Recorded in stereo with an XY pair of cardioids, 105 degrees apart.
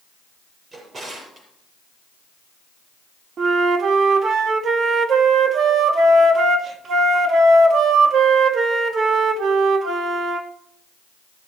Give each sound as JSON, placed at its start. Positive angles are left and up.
{"t": 0.7, "sound": "a drawer", "azimuth_deg": -40, "distance_m": 6.0}
{"t": 3.4, "sound": "a flute", "azimuth_deg": -50, "distance_m": 1.4}